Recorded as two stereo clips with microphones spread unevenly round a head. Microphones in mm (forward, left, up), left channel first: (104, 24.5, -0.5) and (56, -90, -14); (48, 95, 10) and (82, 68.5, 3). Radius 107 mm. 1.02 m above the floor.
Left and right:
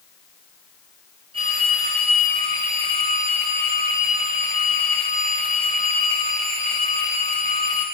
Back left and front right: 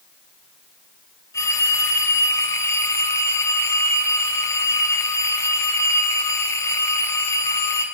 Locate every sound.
1.3 s a phone ringing: straight behind, 3.5 m